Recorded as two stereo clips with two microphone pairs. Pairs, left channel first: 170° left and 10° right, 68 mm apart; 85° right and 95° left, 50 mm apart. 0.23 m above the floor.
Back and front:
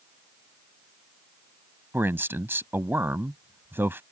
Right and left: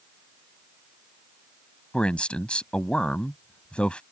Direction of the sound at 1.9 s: 35° right.